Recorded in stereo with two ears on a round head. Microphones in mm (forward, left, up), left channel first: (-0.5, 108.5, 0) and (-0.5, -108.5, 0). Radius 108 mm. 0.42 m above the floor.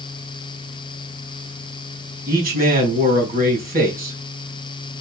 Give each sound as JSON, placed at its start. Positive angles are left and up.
{"t": 2.3, "sound": "a man speaking", "side_deg": -35, "distance_m": 4.0}